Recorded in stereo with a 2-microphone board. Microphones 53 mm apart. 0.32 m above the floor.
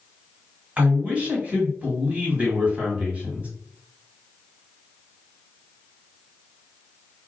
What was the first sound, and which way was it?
A man speaking, 25° right (ahead or behind).